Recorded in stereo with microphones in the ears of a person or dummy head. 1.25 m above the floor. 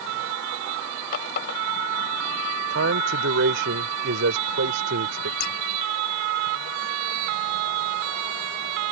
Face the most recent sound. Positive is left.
turn(degrees=45)  # may be behind; listen again after turning